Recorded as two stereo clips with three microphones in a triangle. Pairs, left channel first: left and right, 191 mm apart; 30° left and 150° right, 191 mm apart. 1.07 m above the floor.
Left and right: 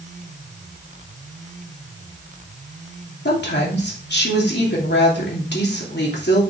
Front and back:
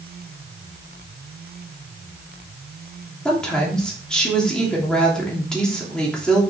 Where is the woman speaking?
115° left, 3 m.